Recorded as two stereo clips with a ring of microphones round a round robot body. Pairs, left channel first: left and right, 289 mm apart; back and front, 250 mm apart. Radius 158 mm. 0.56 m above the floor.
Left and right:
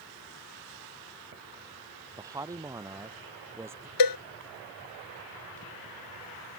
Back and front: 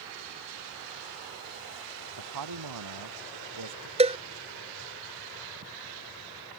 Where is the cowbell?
70° left.